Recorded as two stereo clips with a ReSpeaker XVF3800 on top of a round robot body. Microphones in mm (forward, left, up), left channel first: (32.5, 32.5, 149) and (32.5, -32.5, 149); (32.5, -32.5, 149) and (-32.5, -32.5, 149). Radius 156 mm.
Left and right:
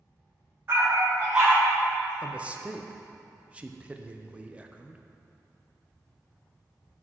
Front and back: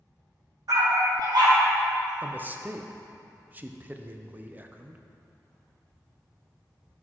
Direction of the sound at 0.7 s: 150° right.